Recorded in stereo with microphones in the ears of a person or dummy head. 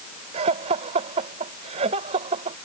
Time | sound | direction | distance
0.3 | laughter | 40° right (ahead or behind) | ?